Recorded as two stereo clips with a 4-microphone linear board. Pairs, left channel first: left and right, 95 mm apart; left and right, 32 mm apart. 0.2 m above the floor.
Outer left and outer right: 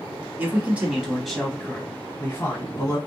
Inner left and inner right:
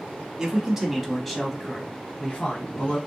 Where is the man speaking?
20° right (ahead or behind), 1.1 m; by 3.0 s 40° left (ahead or behind), 1.2 m.